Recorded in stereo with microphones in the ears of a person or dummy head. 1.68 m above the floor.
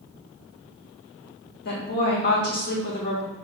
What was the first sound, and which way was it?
A woman speaking, 50° left (ahead or behind).